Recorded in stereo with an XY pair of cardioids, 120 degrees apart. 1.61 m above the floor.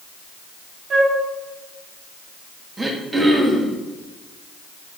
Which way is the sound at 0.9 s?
40° right.